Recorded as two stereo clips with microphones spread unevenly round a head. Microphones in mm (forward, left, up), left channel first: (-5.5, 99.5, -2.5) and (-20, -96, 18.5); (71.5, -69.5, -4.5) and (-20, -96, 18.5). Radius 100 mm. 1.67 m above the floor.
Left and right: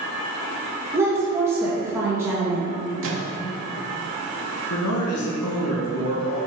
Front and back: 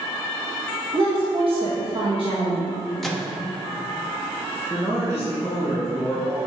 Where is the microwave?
75° right, 1.2 m.